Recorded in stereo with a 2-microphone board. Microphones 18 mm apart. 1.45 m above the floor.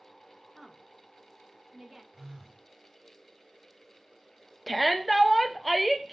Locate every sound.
0.5 s a woman speaking: 20° right (ahead or behind), 0.9 m
2.1 s a phone buzzing: 40° right (ahead or behind), 1.8 m
4.7 s a shout: centre (ahead or behind), 0.7 m